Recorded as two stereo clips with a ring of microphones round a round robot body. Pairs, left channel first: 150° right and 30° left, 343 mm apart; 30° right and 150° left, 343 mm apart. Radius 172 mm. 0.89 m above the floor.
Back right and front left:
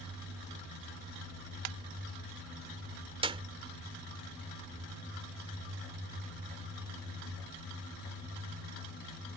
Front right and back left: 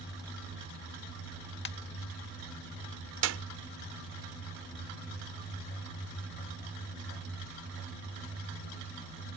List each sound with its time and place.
1.6 s a ringtone: 30° left
3.2 s a clap: 105° left